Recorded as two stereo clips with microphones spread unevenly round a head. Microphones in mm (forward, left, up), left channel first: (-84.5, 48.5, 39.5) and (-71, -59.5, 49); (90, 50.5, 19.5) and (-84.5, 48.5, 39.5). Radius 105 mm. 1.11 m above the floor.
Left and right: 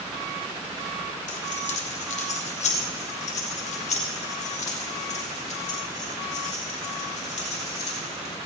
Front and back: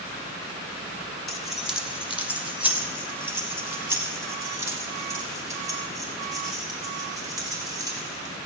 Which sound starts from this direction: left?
Keys jangling, at 1.3 s.